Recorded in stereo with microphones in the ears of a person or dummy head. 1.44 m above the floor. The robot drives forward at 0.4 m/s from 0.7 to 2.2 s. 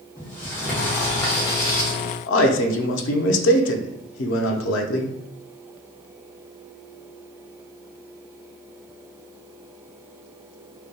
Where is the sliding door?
15° left (ahead or behind), 0.9 m; by 1.9 s 25° left (ahead or behind), 0.5 m.